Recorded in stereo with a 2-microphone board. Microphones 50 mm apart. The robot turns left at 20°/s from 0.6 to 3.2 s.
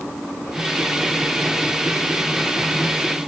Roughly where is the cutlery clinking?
No cutlery clinking in this recording.